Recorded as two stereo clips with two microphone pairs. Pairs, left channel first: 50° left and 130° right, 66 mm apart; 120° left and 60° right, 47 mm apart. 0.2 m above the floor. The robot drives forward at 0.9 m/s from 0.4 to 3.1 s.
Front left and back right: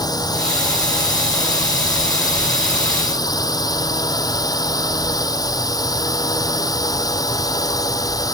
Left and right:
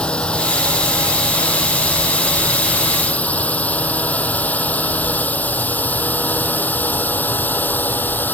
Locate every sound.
0.0 s a drone: 55° left; by 8.3 s 70° left